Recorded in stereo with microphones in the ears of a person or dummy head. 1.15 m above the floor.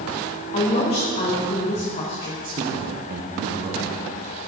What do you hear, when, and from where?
0.5 s a woman speaking: 30° left (ahead or behind), 1.3 m
2.4 s a man speaking: 45° right (ahead or behind), 0.8 m